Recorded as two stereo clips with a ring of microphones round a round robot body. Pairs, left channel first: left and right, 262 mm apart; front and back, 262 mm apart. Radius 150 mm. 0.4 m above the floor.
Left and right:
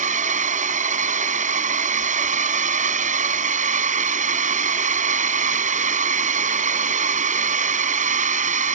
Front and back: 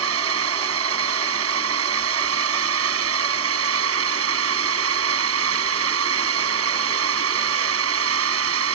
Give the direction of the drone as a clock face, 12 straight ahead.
5 o'clock.